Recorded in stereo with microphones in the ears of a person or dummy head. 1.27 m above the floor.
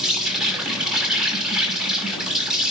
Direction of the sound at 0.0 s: 5° right (ahead or behind).